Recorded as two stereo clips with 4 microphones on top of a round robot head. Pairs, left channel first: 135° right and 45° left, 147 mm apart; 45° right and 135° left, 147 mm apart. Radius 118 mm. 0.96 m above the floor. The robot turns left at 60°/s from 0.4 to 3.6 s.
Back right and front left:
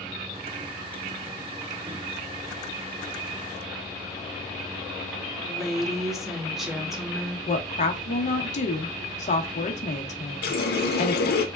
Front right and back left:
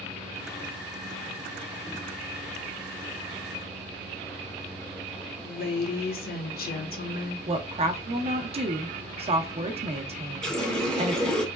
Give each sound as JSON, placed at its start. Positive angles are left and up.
{"t": 5.4, "sound": "a woman speaking", "azimuth_deg": -40, "distance_m": 1.1}
{"t": 7.5, "sound": "a woman speaking", "azimuth_deg": -175, "distance_m": 0.8}
{"t": 10.4, "sound": "a running tap", "azimuth_deg": -130, "distance_m": 0.7}